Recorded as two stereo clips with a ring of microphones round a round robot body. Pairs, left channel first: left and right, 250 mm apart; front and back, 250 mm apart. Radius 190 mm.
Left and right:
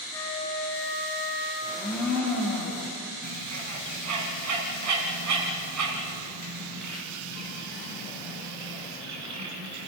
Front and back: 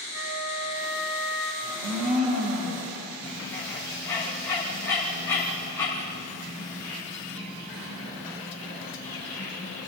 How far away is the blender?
About 6.5 m.